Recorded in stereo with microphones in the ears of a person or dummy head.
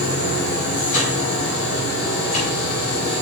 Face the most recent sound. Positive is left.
turn(degrees=45)  # may be behind; listen again after turning